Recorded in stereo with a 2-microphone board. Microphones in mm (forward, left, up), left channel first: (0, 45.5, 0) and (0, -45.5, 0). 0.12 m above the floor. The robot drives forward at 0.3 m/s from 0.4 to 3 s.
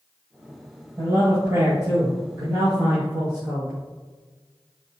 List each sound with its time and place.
1.0 s a man speaking: 45° right (ahead or behind), 3 m; by 3.7 s 35° right (ahead or behind), 3 m